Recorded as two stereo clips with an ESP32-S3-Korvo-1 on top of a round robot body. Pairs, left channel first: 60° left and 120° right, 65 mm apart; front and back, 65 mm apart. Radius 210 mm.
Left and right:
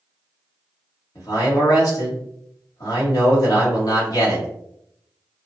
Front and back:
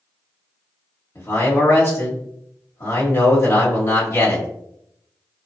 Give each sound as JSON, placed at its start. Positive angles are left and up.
{"t": 1.1, "sound": "a man speaking", "azimuth_deg": 40, "distance_m": 1.6}